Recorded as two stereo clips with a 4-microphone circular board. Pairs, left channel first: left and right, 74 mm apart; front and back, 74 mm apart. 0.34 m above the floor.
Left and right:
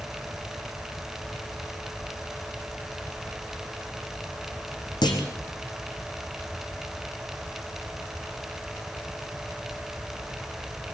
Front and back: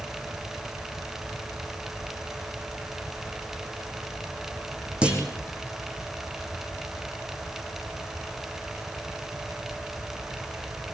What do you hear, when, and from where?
5.0 s a clunk: 105° left, 3.5 m